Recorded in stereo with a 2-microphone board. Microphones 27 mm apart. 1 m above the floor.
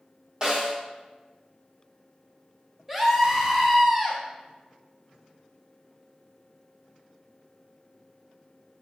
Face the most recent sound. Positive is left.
turn(degrees=-10)  # may be behind; listen again after turning